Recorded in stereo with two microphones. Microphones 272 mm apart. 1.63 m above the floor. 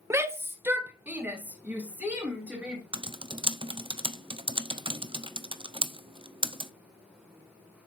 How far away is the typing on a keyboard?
About 0.5 m.